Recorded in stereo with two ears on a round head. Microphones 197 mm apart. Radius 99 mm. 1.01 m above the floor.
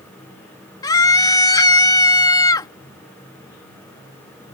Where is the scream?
20° left (ahead or behind).